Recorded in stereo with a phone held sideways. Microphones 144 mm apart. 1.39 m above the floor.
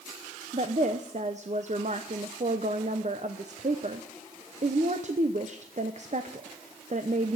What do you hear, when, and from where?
0.5 s a woman speaking: 55° right (ahead or behind), 0.8 m